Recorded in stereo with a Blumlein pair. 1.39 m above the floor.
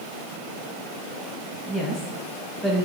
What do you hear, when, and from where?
1.7 s a woman speaking: 5° right, 1.6 m